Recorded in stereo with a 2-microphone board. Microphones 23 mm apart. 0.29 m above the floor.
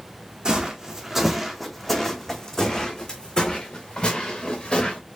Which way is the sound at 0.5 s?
35° right (ahead or behind).